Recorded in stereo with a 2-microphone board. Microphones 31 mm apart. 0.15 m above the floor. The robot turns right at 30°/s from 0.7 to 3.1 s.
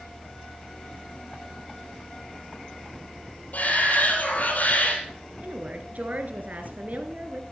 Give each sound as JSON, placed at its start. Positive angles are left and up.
{"t": 3.5, "sound": "a shout", "side_deg": 55, "distance_m": 5.0}
{"t": 5.4, "sound": "a woman speaking", "side_deg": -55, "distance_m": 1.8}